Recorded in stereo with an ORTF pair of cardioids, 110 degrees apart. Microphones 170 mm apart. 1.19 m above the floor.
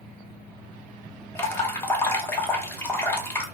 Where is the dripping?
15° left, 0.7 m.